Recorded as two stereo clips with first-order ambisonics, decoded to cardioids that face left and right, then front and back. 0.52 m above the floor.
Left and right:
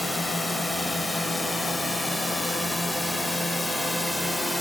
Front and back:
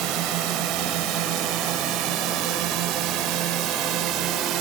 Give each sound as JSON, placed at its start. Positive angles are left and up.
{"t": 0.0, "sound": "a drone", "azimuth_deg": 175}